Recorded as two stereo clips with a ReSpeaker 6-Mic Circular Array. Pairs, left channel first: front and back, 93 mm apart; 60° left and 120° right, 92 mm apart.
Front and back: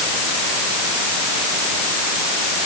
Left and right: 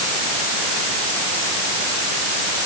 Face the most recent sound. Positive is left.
No sound to turn to.